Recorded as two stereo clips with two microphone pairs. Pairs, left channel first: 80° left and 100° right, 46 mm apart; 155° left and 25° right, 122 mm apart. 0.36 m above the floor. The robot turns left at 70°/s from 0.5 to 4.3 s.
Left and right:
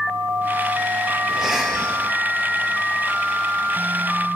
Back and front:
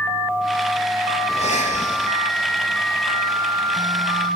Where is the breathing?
170° right, 3 m; by 2.2 s 130° left, 3 m.